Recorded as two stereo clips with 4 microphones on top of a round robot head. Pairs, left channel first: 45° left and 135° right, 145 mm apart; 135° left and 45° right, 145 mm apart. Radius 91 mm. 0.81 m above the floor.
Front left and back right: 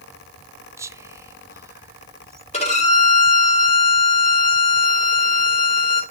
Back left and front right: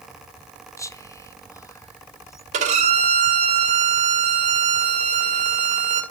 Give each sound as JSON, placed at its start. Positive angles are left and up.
{"t": 0.8, "sound": "whispering", "azimuth_deg": 180, "distance_m": 0.8}
{"t": 2.5, "sound": "a violin", "azimuth_deg": 0, "distance_m": 2.0}